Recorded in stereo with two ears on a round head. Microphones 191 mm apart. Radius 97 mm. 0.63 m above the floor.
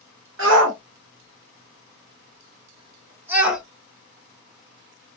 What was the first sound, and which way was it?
A shout, 65° right (ahead or behind).